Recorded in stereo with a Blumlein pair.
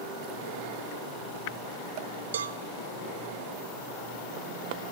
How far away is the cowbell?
About 0.6 m.